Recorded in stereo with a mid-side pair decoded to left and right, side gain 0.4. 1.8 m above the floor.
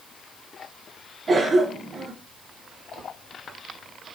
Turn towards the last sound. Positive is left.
turn(degrees=-45)